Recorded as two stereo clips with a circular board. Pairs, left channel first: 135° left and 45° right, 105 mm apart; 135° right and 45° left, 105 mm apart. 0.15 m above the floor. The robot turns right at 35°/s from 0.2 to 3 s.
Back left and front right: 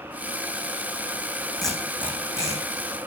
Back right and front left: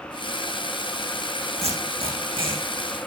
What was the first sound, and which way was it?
Tape being pulled, 45° left.